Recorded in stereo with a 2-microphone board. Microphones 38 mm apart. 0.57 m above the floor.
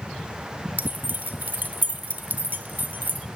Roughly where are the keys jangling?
Right.